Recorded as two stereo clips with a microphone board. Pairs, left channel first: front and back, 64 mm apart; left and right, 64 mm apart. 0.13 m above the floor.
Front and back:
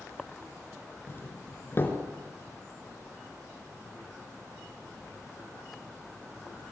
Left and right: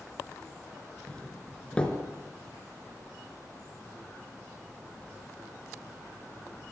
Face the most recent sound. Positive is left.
turn(degrees=25)